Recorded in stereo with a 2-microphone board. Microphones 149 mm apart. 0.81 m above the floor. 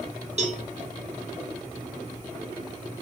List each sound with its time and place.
0.4 s a cowbell: 45° right (ahead or behind), 0.7 m